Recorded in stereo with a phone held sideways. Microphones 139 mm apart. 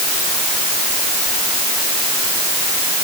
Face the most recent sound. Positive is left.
No sound to turn to.